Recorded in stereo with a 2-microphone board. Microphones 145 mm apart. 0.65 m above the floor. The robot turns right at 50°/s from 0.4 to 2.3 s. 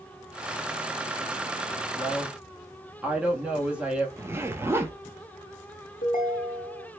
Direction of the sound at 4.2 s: 15° right (ahead or behind).